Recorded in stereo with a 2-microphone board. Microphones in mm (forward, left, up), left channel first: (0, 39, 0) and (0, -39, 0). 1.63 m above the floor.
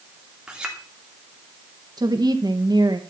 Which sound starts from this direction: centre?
A clink, at 0.5 s.